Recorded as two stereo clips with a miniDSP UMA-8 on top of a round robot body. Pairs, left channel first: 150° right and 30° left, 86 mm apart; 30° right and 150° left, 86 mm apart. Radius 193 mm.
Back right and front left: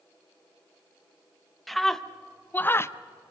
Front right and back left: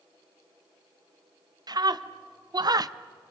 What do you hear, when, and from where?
1.7 s a scream: 120° left, 1.2 m; by 2.9 s 170° left, 0.8 m